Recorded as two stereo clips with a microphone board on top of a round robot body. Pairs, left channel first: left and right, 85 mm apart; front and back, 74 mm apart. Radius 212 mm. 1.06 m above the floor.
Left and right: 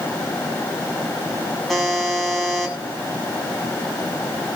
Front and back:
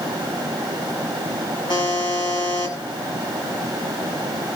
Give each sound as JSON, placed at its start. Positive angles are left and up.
{"t": 1.7, "sound": "a buzzer", "azimuth_deg": 5, "distance_m": 8.0}